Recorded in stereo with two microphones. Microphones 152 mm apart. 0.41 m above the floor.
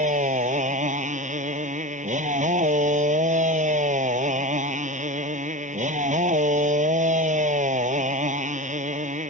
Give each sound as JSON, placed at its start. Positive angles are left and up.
{"t": 0.0, "sound": "a motorcycle", "side_deg": -55}